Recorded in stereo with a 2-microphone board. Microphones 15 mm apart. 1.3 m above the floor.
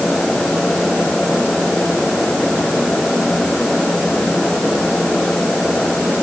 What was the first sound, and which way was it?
Only background noise.